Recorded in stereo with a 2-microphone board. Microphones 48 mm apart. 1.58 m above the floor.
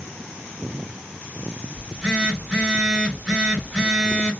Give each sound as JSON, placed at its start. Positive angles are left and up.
{"t": 1.8, "sound": "a phone buzzing", "side_deg": -10, "distance_m": 1.9}